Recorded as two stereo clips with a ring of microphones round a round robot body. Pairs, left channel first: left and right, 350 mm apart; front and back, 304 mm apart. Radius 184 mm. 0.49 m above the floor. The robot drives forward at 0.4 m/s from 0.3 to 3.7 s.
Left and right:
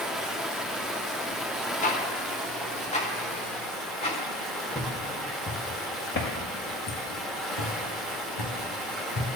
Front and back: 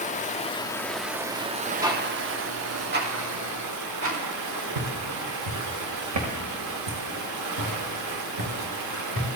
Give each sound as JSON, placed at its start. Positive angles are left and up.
{"t": 0.0, "sound": "running water", "azimuth_deg": -5, "distance_m": 0.8}
{"t": 1.8, "sound": "ticking", "azimuth_deg": 115, "distance_m": 1.2}
{"t": 4.8, "sound": "footsteps", "azimuth_deg": 170, "distance_m": 2.0}